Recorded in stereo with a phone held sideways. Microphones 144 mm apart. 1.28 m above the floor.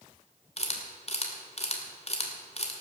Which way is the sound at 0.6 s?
45° left (ahead or behind).